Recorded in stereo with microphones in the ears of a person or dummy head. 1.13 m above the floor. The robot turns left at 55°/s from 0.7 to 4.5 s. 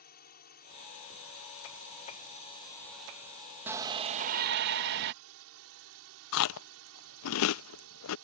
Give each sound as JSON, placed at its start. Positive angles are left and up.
{"t": 0.0, "sound": "a drone", "azimuth_deg": 130}
{"t": 3.7, "sound": "a shout", "azimuth_deg": -10}
{"t": 6.3, "sound": "chewing", "side_deg": 75}